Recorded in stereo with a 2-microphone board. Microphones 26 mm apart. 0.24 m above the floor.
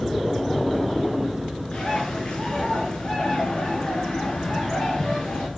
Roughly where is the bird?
Left.